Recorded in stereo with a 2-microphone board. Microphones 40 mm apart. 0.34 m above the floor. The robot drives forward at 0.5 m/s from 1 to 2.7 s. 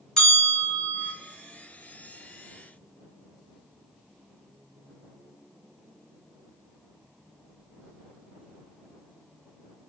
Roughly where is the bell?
Centre.